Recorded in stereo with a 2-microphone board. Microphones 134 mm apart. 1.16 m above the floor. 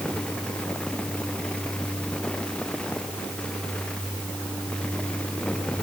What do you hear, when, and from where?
Only background noise.